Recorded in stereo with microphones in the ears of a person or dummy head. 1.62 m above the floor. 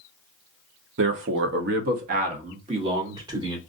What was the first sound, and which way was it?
A man speaking, 60° right (ahead or behind).